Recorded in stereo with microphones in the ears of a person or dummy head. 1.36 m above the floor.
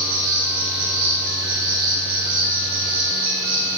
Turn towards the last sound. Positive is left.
turn(degrees=-20)  # may be behind; listen again after turning